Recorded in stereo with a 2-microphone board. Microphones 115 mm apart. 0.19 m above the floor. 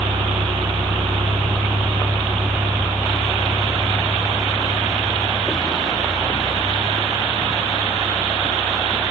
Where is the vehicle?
85° right; by 9.1 s 15° left (ahead or behind).